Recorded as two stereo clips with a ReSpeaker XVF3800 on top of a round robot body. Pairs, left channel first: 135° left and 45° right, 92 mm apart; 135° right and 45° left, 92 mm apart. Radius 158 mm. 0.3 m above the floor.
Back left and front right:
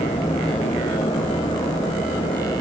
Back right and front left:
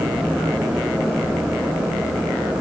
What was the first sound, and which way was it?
Only background noise.